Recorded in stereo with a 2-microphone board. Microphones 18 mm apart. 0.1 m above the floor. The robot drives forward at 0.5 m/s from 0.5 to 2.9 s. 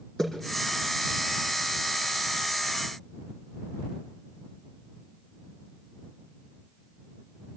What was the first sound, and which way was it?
A splash, 35° left (ahead or behind).